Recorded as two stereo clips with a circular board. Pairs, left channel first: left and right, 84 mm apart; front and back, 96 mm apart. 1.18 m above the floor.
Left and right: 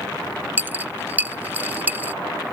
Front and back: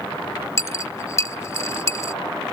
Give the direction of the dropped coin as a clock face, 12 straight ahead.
1 o'clock.